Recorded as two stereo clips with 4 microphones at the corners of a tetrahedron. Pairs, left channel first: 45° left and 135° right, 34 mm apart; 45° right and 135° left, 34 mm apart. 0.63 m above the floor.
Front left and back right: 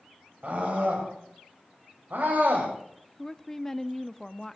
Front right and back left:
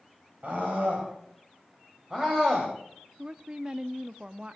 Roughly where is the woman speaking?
Behind left.